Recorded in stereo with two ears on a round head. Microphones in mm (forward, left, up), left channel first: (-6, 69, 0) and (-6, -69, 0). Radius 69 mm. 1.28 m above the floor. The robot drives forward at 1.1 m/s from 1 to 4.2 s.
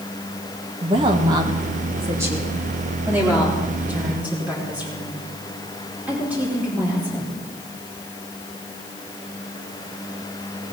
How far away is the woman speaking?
About 1.4 m.